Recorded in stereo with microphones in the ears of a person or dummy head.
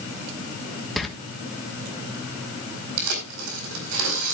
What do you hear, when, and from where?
1.0 s a door slam: centre (ahead or behind), 1.3 m
3.0 s tearing paper: 70° right (ahead or behind), 4.5 m